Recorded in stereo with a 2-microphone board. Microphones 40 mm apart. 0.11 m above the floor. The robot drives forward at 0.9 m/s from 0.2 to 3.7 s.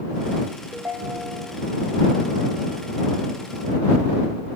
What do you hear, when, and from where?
0.7 s a ringtone: 60° right (ahead or behind), 4 m; by 1.6 s 70° right (ahead or behind), 3.5 m